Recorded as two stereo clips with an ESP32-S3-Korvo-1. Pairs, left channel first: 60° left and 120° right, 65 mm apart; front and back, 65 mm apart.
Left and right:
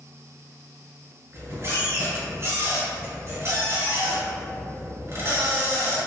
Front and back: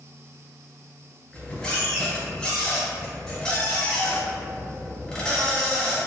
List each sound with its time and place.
1.3 s a squeak: 80° right, 1.6 m